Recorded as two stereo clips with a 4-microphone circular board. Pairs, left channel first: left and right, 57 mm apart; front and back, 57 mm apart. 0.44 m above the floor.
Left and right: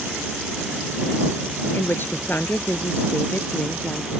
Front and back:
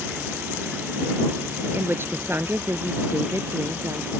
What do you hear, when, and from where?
1.7 s a woman speaking: 135° left; by 4.1 s 150° left